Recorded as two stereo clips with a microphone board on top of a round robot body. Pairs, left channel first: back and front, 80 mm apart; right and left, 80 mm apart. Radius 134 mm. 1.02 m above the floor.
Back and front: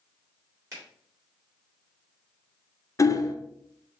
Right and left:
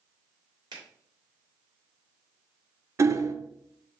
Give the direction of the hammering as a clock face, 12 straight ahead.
7 o'clock.